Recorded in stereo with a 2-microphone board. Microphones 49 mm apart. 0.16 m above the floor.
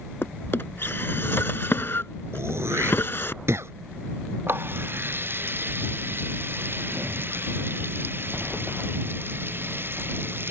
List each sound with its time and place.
0.2 s a drawer: 50° left (ahead or behind)
2.3 s throat clearing: 65° right (ahead or behind)
4.5 s a running tap: 45° right (ahead or behind)